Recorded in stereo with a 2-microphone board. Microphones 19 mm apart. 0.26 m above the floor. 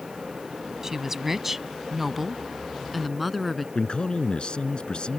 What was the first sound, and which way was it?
A woman speaking, 25° right (ahead or behind).